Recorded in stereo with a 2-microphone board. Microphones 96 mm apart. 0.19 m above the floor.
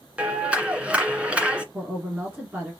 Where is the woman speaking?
15° right (ahead or behind), 2.5 m.